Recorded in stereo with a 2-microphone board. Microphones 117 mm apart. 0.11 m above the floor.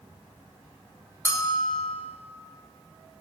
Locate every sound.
1.2 s a bell: 20° left (ahead or behind), 1.8 m